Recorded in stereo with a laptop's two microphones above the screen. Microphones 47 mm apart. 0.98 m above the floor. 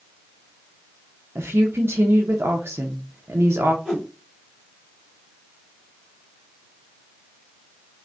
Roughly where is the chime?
No chime in this recording.